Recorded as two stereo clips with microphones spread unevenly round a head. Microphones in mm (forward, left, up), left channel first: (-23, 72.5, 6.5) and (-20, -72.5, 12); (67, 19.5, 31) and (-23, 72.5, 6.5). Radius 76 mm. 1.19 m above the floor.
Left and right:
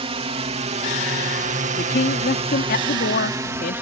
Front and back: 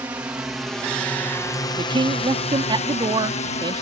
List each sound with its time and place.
0.0 s a drone: 135° right; by 3.8 s 15° right
1.8 s a man speaking: 110° left